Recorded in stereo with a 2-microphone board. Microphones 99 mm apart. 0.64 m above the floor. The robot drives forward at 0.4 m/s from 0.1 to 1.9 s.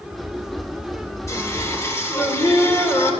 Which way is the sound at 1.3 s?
30° left (ahead or behind).